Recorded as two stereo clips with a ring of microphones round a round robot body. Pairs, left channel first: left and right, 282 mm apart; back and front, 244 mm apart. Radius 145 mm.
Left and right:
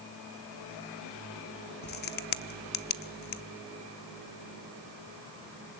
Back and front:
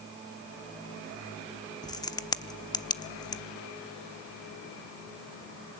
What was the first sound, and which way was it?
A crack, 115° left.